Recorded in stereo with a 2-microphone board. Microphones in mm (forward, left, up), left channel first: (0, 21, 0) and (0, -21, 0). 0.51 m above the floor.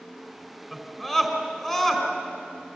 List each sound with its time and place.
0.7 s a scream: 10° left (ahead or behind), 5 m